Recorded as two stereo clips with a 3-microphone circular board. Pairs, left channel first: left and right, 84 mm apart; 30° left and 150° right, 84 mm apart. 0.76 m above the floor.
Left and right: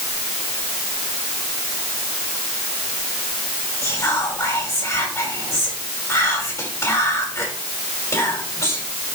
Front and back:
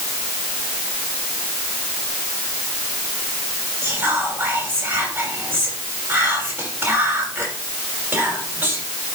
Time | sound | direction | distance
3.8 | whispering | 140° left | 6 m